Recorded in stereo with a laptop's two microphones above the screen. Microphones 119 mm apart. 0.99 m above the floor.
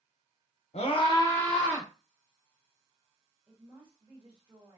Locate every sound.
0.7 s a scream: 60° left (ahead or behind), 0.7 m; by 1.9 s 20° right (ahead or behind), 0.7 m
3.5 s a woman speaking: 40° right (ahead or behind), 1.3 m